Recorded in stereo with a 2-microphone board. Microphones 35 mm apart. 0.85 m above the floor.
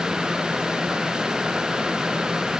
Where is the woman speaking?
I don't hear a woman speaking.